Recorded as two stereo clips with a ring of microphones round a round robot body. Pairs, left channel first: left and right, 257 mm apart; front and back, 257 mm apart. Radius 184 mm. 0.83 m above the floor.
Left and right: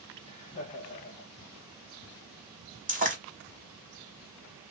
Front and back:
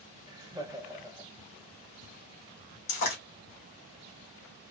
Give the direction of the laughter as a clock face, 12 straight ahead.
8 o'clock.